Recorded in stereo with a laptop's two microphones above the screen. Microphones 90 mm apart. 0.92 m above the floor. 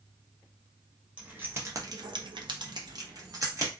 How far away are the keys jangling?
About 0.8 m.